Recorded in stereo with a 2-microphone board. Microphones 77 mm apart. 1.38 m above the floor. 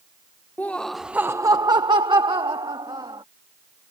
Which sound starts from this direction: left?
Laughter, at 0.6 s.